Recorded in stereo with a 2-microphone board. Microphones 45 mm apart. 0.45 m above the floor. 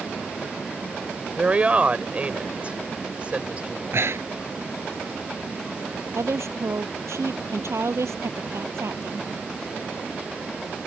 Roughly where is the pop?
I don't hear a pop.